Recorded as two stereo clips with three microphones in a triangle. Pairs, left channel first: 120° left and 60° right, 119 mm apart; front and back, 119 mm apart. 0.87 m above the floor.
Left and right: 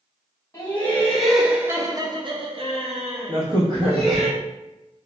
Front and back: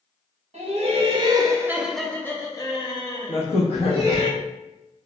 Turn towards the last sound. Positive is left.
turn(degrees=-15)